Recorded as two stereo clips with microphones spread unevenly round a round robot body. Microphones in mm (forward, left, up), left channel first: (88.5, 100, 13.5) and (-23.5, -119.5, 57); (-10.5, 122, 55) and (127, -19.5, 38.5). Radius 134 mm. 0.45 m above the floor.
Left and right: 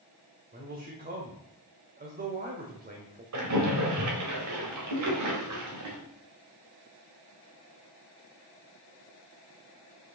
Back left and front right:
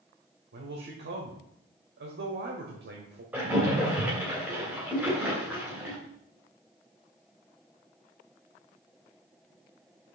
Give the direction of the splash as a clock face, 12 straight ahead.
4 o'clock.